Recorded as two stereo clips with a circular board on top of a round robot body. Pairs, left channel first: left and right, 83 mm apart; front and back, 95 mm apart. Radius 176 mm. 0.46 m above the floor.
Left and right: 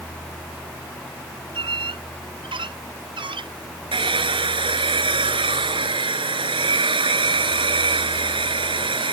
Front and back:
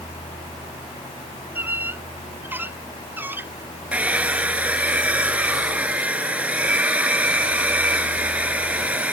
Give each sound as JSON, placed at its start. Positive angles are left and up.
{"t": 1.6, "sound": "a squeak", "azimuth_deg": -110}
{"t": 3.9, "sound": "a hair dryer", "azimuth_deg": -105}